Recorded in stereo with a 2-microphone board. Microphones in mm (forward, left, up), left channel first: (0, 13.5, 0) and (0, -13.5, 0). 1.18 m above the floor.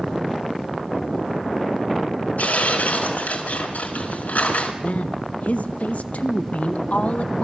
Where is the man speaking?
65° left (ahead or behind), 1.4 m.